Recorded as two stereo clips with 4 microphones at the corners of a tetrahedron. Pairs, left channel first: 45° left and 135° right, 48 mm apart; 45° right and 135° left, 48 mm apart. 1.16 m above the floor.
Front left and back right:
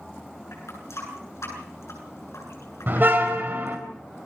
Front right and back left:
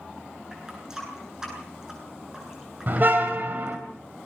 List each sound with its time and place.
0.5 s a running tap: 60° left, 9 m
2.9 s a car horn: straight behind, 3.5 m